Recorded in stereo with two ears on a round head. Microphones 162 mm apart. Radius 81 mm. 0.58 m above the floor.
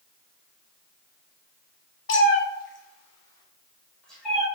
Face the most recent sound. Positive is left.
turn(degrees=0)  # may be behind; listen again after turning